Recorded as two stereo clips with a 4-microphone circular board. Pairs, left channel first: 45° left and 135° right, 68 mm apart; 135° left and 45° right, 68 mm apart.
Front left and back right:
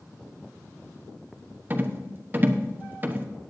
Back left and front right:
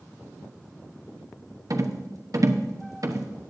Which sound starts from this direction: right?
A rattle, at 1.7 s.